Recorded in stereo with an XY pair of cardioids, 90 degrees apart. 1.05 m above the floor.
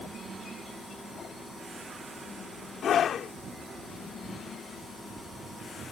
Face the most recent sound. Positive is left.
turn(degrees=65)